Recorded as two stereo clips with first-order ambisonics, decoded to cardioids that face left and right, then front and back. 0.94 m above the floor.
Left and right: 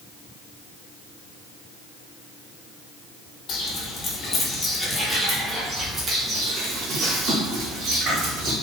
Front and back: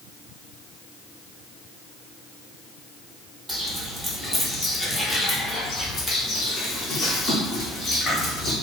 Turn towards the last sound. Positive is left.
turn(degrees=-65)